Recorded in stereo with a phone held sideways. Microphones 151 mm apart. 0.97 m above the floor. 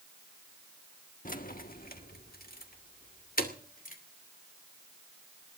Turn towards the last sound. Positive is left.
turn(degrees=70)  # may be behind; listen again after turning